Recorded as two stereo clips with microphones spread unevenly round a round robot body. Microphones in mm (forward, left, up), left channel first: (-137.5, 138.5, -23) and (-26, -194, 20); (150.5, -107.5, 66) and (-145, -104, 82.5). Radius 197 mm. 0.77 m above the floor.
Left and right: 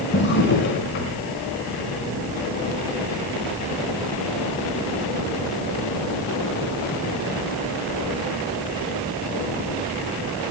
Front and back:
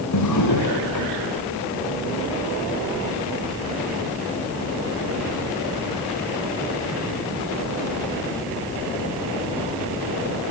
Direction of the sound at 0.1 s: 45° left.